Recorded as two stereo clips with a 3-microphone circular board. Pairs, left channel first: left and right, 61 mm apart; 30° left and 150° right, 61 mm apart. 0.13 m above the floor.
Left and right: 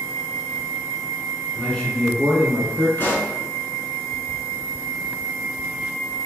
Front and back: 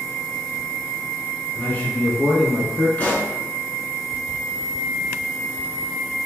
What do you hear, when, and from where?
1.6 s a man speaking: 40° left, 1.2 m; by 2.9 s 105° right, 1.3 m
3.0 s a pop: 70° left, 1.0 m